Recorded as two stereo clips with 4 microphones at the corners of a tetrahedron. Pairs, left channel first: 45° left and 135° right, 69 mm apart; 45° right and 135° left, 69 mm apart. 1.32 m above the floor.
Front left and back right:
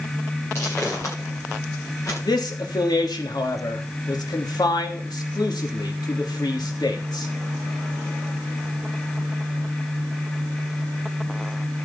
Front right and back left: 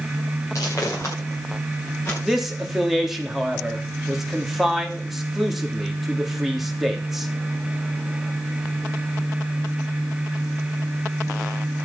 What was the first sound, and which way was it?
Footsteps, 5° right.